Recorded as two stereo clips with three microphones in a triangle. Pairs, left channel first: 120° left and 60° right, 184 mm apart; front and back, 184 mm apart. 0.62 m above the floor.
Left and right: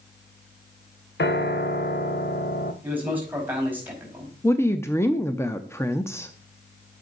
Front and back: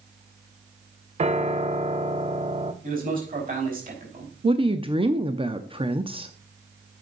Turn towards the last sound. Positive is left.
turn(degrees=180)